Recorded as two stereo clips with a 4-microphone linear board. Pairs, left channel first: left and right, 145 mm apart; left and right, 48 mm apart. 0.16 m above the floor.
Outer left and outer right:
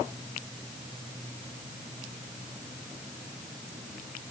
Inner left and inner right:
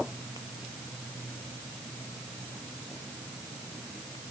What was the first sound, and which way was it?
Only background noise.